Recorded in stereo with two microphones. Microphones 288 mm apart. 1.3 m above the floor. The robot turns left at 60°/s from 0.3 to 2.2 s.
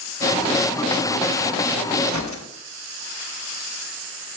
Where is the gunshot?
70° left (ahead or behind), 1.1 m; by 2.5 s 80° left, 1.1 m.